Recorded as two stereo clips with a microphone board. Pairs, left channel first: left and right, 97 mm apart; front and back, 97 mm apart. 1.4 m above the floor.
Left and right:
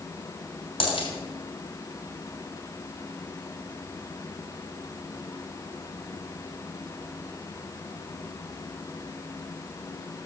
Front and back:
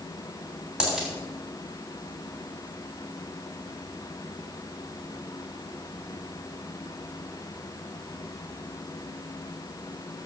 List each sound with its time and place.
0.8 s a dropped coin: 100° left, 3 m